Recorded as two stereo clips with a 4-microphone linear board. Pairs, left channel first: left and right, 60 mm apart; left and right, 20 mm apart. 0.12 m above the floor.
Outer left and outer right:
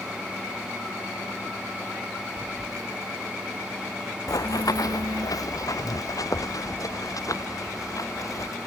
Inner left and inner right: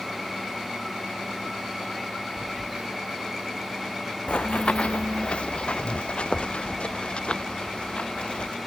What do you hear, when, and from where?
2.4 s a phone buzzing: 80° right
4.3 s running footsteps: 85° left; by 8.6 s 65° left (ahead or behind)